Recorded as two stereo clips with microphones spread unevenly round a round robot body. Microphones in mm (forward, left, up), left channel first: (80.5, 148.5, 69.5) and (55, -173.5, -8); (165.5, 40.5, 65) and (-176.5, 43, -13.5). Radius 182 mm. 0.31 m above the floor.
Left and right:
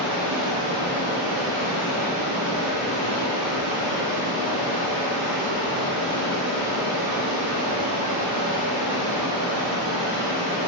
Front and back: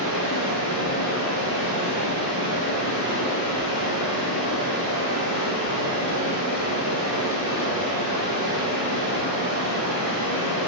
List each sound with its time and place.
0.0 s running water: 60° right, 0.9 m